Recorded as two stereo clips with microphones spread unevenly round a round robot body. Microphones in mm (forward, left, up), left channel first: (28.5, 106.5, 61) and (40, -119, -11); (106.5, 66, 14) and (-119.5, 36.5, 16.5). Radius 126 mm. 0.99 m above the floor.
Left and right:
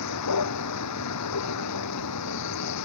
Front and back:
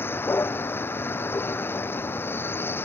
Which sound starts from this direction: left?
A vehicle, at 0.0 s.